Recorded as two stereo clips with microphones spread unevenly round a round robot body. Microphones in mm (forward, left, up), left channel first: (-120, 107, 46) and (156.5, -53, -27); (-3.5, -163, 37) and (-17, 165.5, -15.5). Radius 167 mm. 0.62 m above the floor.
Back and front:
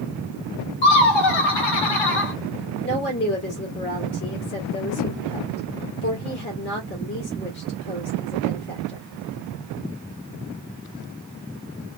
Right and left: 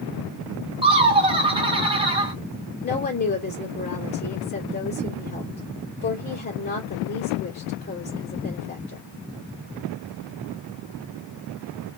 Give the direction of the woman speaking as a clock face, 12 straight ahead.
5 o'clock.